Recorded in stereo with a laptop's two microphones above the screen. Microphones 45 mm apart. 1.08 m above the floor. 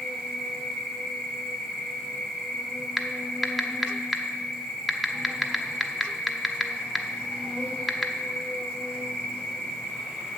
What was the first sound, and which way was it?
An insect, centre (ahead or behind).